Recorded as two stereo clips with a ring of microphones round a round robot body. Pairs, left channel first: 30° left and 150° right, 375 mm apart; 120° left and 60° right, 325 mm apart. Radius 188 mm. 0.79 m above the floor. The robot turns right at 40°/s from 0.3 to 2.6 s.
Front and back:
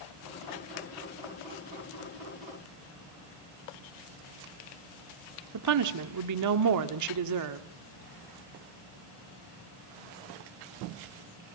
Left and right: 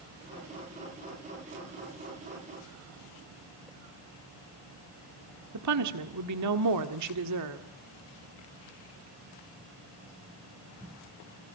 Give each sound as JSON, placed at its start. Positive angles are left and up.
{"t": 5.5, "sound": "a woman speaking", "azimuth_deg": -105, "distance_m": 1.6}